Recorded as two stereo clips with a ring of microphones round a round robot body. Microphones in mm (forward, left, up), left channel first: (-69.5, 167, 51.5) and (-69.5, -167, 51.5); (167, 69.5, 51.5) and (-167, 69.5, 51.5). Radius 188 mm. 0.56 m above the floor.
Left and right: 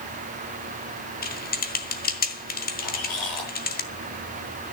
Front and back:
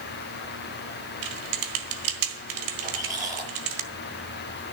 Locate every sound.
1.2 s typing on a keyboard: 155° left, 1.6 m
2.8 s a squeak: 110° left, 8 m